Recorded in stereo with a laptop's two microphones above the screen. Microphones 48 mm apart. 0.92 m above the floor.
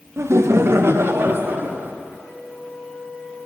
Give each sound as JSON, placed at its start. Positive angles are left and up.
{"t": 0.2, "sound": "laughter", "side_deg": -65, "distance_m": 0.5}
{"t": 2.1, "sound": "a flute", "side_deg": 45, "distance_m": 6.0}